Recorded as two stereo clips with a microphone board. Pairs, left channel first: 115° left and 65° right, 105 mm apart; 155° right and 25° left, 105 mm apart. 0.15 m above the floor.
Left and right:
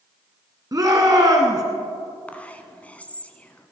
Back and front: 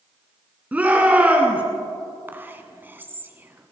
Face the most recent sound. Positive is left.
turn(degrees=60)